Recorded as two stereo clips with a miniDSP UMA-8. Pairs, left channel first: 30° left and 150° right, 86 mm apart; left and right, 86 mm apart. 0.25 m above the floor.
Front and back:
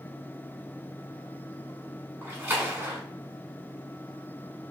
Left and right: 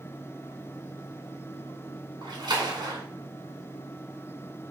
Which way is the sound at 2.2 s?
95° right.